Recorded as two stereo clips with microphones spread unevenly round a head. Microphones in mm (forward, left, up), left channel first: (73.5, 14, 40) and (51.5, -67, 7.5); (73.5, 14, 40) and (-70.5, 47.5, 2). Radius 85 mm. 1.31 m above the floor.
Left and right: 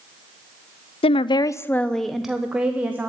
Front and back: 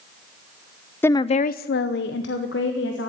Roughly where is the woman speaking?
Left.